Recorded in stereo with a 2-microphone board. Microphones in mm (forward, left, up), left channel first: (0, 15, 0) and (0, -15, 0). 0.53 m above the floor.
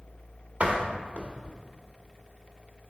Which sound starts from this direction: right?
A door slam, at 0.6 s.